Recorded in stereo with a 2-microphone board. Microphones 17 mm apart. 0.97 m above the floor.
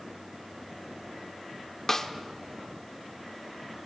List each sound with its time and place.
1.9 s a snare drum: 25° left (ahead or behind), 0.7 m